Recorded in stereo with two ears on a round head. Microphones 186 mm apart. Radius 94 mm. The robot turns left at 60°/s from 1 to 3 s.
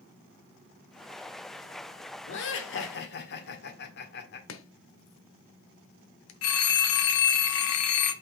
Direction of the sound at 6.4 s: 75° left (ahead or behind).